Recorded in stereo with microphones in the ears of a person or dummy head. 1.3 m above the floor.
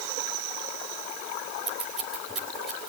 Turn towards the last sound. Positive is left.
turn(degrees=0)  # may be behind; listen again after turning